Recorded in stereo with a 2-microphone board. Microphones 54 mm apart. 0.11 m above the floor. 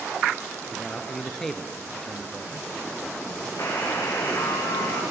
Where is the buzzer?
65° left (ahead or behind), 4.5 m.